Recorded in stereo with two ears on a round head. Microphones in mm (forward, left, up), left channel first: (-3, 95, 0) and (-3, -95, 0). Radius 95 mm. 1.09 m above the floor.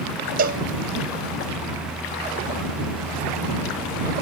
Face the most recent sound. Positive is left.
turn(degrees=-50)  # may be behind; listen again after turning